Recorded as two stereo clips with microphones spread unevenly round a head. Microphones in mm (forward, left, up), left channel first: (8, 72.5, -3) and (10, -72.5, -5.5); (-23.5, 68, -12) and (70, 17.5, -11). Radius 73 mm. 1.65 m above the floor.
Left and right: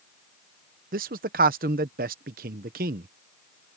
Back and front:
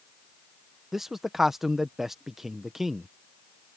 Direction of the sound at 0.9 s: 115° right.